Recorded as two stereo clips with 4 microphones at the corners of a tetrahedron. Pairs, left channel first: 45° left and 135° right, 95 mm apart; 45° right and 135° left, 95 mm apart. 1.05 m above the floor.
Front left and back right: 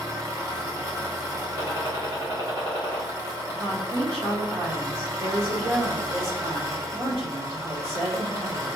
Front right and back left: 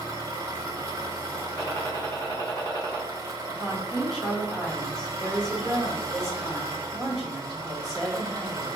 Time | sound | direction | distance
0.0 | an engine running | 175° right | 0.7 m
1.6 | a gunshot | 100° right | 1.4 m
3.5 | a woman speaking | 130° right | 1.2 m